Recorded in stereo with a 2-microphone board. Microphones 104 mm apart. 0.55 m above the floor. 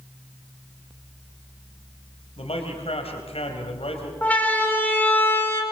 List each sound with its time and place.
2.4 s a man speaking: 70° left (ahead or behind), 3.5 m
4.2 s a siren: 15° left (ahead or behind), 4.5 m; by 5.6 s 20° left (ahead or behind), 4 m